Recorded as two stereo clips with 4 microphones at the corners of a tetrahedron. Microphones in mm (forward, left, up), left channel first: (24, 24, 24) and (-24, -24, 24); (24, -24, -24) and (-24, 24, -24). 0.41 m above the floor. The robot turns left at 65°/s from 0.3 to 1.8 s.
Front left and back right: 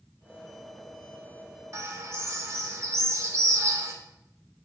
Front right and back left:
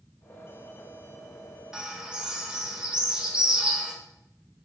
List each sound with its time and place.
1.7 s a bird: 150° right, 0.5 m; by 3.9 s 155° right, 0.5 m